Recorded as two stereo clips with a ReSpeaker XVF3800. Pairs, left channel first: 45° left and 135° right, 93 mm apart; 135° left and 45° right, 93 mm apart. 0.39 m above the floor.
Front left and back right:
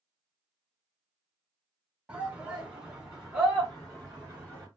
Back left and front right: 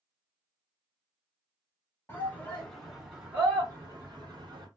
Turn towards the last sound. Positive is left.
turn(degrees=-45)